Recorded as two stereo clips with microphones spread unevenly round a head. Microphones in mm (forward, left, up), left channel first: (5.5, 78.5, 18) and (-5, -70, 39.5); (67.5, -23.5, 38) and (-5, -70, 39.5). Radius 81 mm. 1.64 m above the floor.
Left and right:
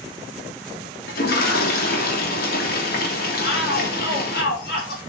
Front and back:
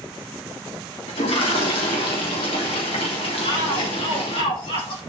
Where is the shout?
65° left, 5 m.